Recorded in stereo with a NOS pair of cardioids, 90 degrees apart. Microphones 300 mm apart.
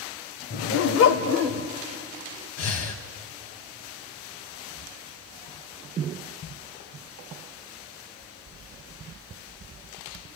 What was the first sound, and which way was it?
A dog barking, 45° left.